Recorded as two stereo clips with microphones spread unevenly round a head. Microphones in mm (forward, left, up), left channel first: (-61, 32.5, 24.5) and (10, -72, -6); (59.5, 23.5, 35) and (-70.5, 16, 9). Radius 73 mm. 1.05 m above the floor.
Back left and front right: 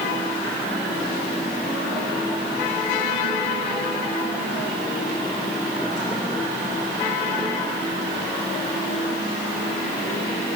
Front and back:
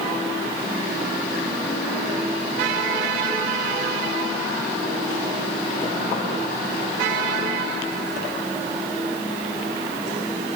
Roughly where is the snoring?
No snoring in this recording.